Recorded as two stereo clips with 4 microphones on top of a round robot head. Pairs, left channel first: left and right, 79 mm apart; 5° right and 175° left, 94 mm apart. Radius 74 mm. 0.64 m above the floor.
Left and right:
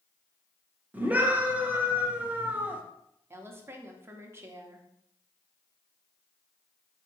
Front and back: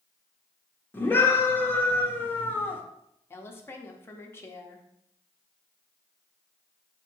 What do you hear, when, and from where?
0.9 s a scream: 45° right, 0.8 m
3.3 s a woman speaking: 55° right, 0.7 m